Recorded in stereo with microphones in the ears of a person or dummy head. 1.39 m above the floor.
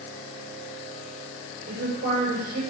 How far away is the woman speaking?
About 8 m.